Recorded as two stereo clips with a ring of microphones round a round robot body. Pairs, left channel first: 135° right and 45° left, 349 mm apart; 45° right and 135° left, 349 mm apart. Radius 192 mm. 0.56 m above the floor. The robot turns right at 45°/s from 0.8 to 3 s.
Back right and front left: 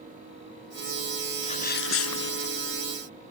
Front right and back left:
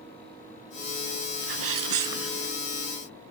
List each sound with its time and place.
1.4 s a sneeze: 150° left; by 2.5 s 160° right